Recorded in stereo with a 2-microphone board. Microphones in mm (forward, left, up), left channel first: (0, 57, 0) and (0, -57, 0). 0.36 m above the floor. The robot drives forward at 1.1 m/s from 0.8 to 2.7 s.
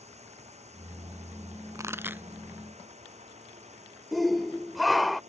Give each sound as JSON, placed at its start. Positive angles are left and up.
{"t": 0.0, "sound": "a drone", "side_deg": -75}
{"t": 1.8, "sound": "a pop", "side_deg": -30}
{"t": 4.1, "sound": "a shout", "side_deg": 0}